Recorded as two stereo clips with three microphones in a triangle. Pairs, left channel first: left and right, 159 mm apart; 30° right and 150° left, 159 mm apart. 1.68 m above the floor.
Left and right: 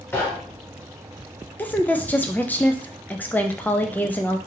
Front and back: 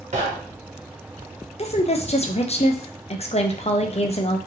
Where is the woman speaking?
10° left, 0.5 m.